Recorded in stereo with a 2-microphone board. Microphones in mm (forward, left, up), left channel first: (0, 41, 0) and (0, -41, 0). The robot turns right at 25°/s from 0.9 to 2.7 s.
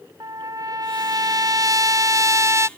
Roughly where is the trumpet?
Right.